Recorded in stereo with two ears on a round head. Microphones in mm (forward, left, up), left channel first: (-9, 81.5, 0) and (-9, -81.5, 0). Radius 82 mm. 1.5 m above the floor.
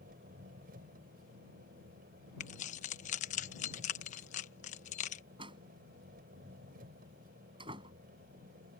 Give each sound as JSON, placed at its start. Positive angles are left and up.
{"t": 0.0, "sound": "an engine running", "side_deg": -50}
{"t": 2.4, "sound": "keys jangling", "side_deg": 40}
{"t": 5.4, "sound": "a door slam", "side_deg": -25}